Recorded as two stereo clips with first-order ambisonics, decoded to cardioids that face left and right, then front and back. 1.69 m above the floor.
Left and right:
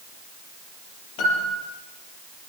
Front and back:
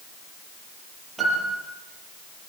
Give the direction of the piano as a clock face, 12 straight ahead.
9 o'clock.